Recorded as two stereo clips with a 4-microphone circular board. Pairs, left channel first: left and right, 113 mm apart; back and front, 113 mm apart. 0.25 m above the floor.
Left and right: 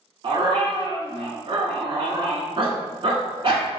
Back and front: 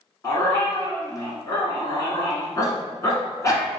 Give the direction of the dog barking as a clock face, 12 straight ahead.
4 o'clock.